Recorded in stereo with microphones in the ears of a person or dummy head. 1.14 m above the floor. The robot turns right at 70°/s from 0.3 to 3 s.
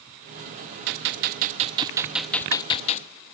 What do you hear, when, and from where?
0.9 s a gunshot: 95° right, 0.6 m; by 3.1 s 50° left, 0.6 m